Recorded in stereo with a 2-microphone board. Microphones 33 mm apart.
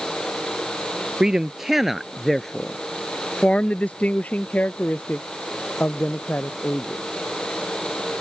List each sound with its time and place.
1.2 s a man speaking: 20° right (ahead or behind); by 7.0 s 65° left (ahead or behind)